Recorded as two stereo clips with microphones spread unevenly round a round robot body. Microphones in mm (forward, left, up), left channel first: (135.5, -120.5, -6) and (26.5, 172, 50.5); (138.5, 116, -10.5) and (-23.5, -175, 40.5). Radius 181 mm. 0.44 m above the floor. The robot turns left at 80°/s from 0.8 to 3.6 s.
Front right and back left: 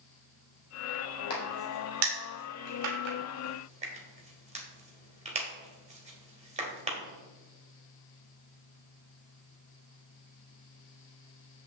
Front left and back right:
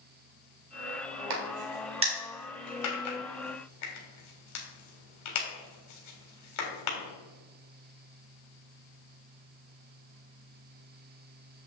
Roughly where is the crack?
Behind right.